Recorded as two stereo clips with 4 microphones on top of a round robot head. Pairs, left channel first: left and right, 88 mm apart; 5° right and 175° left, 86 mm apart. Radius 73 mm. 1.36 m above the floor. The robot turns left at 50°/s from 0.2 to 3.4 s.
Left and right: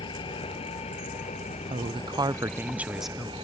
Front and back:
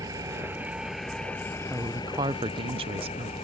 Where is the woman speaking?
110° right; by 3.3 s 170° left.